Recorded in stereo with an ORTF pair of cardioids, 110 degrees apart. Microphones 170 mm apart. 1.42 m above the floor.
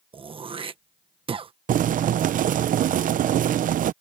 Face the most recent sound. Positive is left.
turn(degrees=-50)